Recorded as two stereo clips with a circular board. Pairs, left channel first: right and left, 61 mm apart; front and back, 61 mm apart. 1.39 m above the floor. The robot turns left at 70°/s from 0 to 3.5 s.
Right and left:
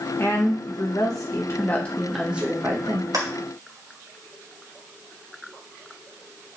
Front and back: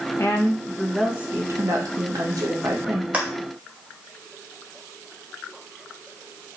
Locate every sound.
0.2 s a woman speaking: 45° right, 2 m; by 3.0 s 115° left, 2 m
3.1 s a clap: 115° left, 2.5 m; by 3.3 s 105° left, 2.5 m